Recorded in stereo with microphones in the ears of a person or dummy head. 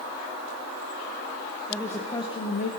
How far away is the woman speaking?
About 1.4 m.